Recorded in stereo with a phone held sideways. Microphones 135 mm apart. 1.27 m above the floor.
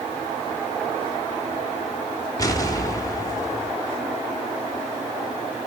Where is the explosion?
25° left (ahead or behind), 1.3 m.